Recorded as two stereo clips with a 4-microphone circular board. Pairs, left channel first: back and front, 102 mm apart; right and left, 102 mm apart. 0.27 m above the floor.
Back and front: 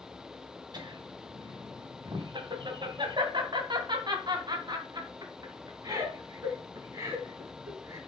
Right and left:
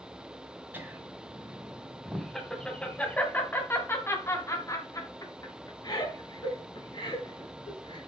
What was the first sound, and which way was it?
Laughter, 25° left.